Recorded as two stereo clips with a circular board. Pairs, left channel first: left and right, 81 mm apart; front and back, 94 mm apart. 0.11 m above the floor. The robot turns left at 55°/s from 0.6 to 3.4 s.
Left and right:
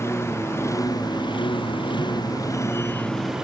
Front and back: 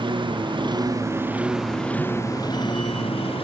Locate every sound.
0.0 s a lawn mower: 150° left; by 3.4 s 5° right